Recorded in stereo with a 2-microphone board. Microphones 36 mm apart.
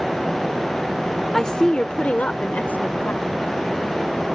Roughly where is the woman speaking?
Centre.